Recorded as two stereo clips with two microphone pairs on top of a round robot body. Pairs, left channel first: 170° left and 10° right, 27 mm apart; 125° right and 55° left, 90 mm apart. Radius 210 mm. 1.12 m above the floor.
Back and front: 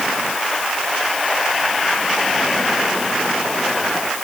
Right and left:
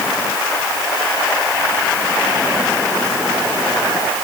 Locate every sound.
Only background noise.